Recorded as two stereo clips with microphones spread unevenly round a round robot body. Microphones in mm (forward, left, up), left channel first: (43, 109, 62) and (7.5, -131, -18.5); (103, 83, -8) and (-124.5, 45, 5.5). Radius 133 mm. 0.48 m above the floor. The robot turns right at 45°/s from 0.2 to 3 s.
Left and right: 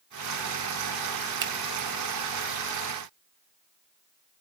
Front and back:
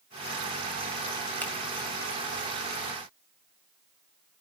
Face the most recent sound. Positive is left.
turn(degrees=-5)